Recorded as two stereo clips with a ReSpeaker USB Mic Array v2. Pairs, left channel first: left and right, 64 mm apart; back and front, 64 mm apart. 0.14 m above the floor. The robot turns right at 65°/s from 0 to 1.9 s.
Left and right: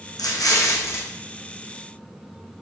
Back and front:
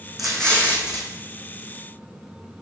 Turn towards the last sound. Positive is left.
turn(degrees=-160)